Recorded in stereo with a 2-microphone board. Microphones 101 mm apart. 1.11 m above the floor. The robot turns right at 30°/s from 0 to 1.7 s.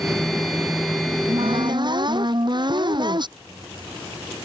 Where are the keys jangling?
65° right (ahead or behind).